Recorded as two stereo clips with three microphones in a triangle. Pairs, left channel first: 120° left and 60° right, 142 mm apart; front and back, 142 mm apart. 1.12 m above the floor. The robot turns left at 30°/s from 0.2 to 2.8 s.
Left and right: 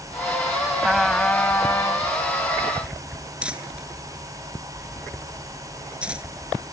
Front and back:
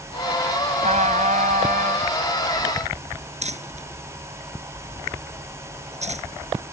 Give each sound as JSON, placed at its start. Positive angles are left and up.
{"t": 0.8, "sound": "a trumpet", "azimuth_deg": -145}
{"t": 3.4, "sound": "crumpling", "azimuth_deg": -145}